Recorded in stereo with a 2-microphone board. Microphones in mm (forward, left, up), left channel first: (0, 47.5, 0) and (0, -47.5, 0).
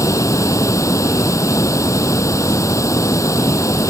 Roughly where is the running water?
Left.